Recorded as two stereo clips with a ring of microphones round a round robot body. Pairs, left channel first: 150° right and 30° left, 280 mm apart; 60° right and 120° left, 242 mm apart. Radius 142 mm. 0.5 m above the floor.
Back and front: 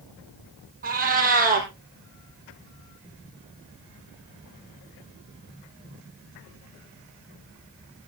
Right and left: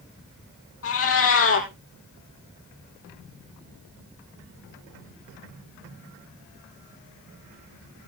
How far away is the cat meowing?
About 3 m.